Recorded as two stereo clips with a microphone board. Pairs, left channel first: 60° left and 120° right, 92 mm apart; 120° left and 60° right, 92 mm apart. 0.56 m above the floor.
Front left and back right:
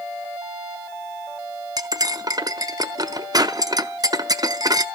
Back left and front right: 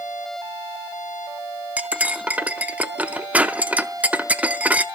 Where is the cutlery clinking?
125° right, 0.6 m.